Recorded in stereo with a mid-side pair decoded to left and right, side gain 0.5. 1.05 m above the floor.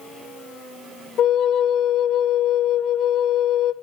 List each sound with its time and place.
1.2 s a flute: 65° left, 1.5 m